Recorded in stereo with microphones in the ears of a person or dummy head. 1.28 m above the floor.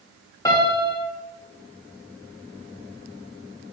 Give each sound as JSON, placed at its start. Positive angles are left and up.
{"t": 0.5, "sound": "a piano", "side_deg": 20, "distance_m": 0.5}